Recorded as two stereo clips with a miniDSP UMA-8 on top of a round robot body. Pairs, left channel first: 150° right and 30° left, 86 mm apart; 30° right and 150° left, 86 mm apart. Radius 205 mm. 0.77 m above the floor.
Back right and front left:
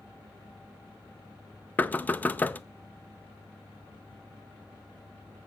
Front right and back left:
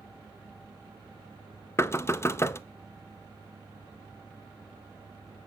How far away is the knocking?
About 0.6 m.